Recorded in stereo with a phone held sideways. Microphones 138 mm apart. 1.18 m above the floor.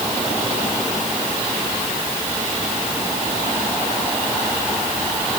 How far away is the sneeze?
I don't hear a sneeze.